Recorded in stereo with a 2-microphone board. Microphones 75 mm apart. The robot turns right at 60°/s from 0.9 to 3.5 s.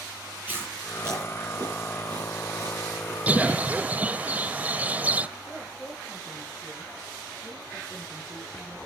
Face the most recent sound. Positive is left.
turn(degrees=10)  # may be behind; listen again after turning